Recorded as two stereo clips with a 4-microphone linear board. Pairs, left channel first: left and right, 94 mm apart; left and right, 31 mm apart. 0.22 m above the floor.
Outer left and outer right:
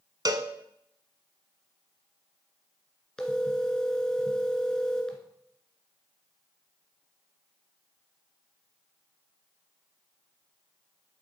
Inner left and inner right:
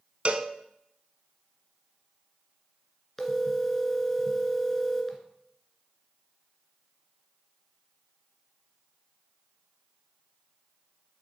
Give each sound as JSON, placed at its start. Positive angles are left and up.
{"t": 0.2, "sound": "a cowbell", "side_deg": -50, "distance_m": 0.9}
{"t": 3.2, "sound": "a phone ringing", "side_deg": 10, "distance_m": 1.7}